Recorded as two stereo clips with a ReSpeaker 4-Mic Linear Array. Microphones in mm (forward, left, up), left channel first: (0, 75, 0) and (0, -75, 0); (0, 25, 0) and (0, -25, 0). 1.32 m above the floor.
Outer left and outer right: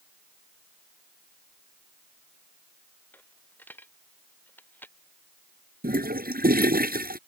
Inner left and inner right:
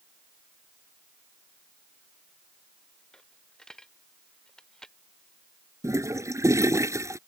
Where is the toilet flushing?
80° right.